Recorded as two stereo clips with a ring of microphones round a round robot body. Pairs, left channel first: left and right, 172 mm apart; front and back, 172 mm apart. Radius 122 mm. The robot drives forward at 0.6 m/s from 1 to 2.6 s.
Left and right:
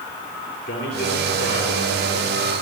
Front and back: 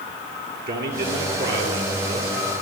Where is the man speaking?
145° left, 7 m; by 2.3 s 150° left, 8 m.